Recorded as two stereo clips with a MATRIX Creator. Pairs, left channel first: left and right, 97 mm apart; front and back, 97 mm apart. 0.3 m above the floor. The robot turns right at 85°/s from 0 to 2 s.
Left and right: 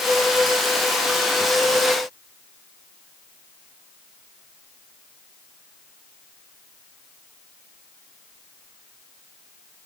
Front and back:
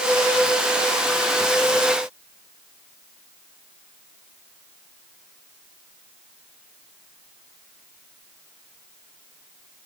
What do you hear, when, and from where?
Only background noise.